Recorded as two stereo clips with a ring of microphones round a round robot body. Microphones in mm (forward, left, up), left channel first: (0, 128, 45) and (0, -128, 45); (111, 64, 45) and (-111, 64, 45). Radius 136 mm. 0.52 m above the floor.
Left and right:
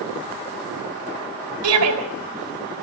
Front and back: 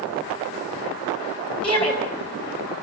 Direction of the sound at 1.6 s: 70° right.